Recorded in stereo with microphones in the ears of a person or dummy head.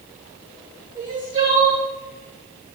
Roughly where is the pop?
No pop in this recording.